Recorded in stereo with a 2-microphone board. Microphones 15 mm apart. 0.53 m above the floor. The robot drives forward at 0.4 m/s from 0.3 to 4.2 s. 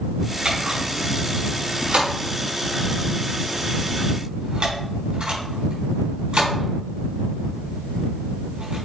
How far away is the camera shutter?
About 3.5 m.